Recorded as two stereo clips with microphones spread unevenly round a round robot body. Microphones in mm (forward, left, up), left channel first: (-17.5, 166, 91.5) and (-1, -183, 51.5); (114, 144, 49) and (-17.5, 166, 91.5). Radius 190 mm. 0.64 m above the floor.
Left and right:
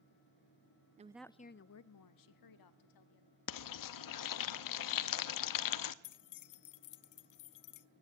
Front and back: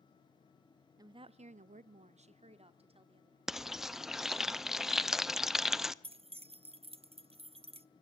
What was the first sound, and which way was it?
A woman speaking, 115° right.